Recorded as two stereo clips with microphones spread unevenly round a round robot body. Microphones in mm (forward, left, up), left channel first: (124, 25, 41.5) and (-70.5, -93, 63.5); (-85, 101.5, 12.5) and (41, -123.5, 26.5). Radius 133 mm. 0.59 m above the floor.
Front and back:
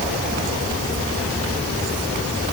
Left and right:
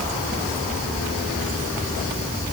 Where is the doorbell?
I don't hear a doorbell.